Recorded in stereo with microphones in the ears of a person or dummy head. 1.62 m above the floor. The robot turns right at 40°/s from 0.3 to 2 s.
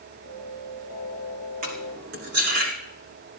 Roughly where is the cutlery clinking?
Right.